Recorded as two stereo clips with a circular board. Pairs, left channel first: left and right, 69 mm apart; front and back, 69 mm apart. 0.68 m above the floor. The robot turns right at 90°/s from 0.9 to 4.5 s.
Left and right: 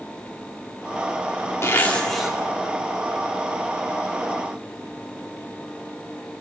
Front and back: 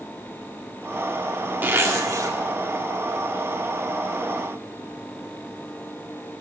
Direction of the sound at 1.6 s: 130° left.